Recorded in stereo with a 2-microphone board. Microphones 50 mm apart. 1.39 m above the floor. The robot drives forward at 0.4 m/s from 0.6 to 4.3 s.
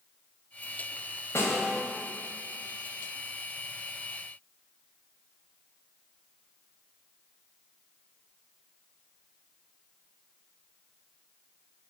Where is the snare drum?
70° left (ahead or behind), 2.5 m.